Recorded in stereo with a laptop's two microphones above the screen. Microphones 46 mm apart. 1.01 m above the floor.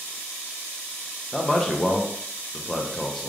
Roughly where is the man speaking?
Centre.